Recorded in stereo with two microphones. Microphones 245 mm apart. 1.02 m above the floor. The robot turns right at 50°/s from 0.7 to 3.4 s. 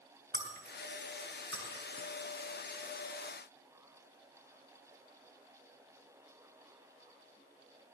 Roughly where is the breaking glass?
Right.